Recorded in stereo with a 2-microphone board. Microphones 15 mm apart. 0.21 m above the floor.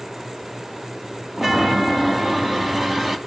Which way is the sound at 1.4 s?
20° right (ahead or behind).